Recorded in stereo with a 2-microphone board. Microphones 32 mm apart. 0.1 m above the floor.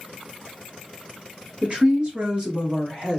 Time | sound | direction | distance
1.6 | a woman speaking | 35° right (ahead or behind) | 1.6 m